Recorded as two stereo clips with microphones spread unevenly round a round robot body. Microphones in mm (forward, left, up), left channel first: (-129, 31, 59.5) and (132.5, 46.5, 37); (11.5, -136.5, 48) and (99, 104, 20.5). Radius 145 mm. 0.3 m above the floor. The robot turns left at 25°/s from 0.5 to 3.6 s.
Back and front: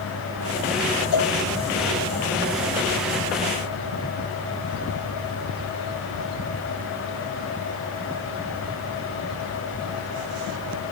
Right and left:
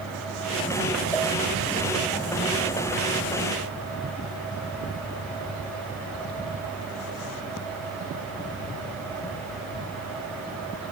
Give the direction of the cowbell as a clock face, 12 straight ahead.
6 o'clock.